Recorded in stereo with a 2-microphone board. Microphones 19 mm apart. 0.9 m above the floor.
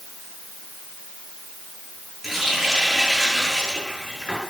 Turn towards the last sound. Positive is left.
turn(degrees=-5)  # may be behind; listen again after turning